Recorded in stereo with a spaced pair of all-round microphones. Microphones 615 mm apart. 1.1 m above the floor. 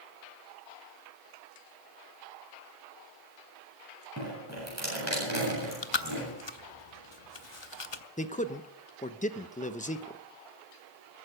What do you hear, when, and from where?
4.2 s dripping: 25° right (ahead or behind), 8 m
5.5 s chewing: 45° left (ahead or behind), 0.8 m
8.2 s a man speaking: 15° left (ahead or behind), 0.8 m